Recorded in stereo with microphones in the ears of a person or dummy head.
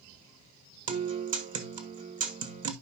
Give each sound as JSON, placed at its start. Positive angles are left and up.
{"t": 0.9, "sound": "a guitar", "side_deg": -45, "distance_m": 1.5}